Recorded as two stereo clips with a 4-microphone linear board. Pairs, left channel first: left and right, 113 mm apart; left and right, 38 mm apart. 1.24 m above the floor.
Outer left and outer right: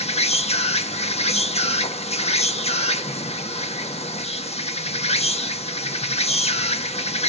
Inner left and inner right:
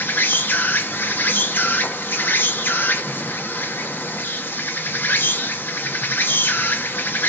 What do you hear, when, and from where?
0.0 s an insect: 70° left (ahead or behind), 1.1 m